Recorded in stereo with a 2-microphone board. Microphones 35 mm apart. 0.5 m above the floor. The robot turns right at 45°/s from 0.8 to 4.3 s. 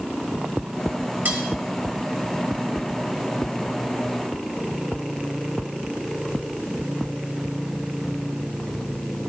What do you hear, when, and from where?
1.2 s cutlery clinking: 70° right (ahead or behind), 1.7 m; by 1.4 s 75° right (ahead or behind), 1.7 m